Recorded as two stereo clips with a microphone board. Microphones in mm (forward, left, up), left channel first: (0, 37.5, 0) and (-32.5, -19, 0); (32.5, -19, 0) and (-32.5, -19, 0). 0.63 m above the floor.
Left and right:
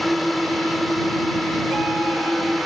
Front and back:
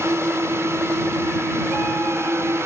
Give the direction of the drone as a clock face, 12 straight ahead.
7 o'clock.